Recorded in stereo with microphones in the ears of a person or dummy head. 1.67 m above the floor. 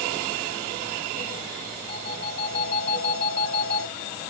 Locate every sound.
1.9 s a phone ringing: 50° left (ahead or behind), 7 m